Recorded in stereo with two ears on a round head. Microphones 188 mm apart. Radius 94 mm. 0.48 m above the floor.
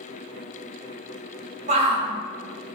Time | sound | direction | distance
1.7 | a shout | 35° right (ahead or behind) | 1.3 m